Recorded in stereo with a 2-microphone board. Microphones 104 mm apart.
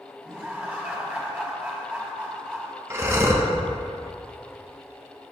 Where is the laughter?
15° right (ahead or behind), 1.5 m.